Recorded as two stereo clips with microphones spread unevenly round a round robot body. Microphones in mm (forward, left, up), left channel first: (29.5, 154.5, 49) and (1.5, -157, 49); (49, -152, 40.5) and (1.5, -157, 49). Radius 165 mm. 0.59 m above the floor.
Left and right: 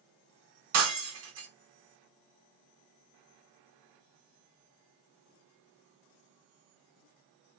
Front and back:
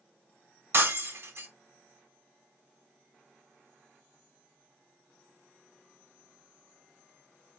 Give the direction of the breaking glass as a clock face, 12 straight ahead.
5 o'clock.